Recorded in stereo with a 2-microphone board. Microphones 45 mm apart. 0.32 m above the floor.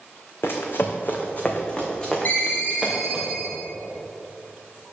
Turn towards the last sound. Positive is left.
turn(degrees=45)  # may be behind; listen again after turning